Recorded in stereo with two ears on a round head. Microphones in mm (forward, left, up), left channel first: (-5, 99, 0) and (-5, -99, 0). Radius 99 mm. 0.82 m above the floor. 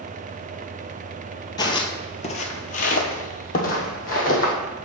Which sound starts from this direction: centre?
Footsteps, at 1.6 s.